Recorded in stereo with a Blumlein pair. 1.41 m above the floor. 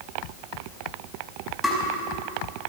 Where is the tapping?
10° left, 5 m.